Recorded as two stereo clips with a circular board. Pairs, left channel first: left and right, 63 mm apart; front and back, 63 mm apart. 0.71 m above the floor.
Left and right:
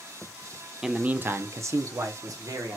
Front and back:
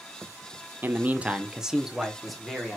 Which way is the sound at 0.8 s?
170° right.